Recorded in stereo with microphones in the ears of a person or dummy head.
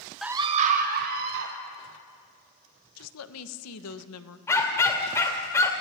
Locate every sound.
0.2 s a scream: centre (ahead or behind), 0.5 m; by 1.5 s 55° right (ahead or behind), 2 m
3.0 s a woman speaking: 85° left, 1.2 m
4.5 s a dog barking: 20° left (ahead or behind), 2 m